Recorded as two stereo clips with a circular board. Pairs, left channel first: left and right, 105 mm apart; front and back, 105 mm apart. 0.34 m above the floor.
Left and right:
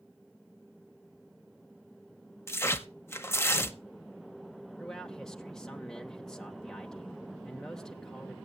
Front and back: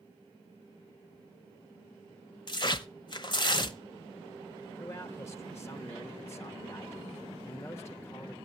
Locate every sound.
2.5 s tearing paper: 30° left, 0.7 m
4.8 s a man speaking: 10° left, 0.9 m